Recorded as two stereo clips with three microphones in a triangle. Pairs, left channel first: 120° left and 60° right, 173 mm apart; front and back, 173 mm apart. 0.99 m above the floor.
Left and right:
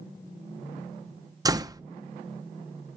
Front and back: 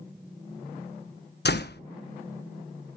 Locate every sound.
1.4 s a door slam: 10° left, 0.8 m